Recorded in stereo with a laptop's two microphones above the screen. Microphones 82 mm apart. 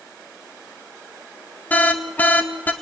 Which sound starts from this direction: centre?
An alarm, at 1.7 s.